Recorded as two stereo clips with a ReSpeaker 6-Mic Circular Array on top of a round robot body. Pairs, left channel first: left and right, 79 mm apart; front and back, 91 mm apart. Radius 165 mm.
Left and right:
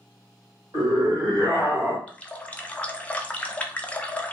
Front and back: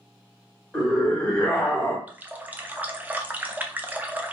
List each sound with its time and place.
0.7 s a scream: 85° right, 1.9 m; by 2.0 s 55° right, 1.1 m
2.1 s a running tap: 135° left, 0.6 m